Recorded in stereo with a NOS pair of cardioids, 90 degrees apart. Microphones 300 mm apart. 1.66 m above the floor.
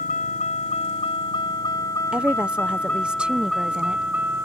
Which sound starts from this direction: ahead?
A woman speaking, at 2.1 s.